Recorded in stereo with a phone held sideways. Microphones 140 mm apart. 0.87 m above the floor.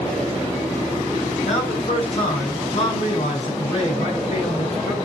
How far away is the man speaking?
About 7 m.